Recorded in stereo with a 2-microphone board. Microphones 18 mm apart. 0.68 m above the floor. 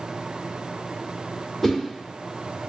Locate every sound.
1.6 s a whoosh: 5° right (ahead or behind), 1.3 m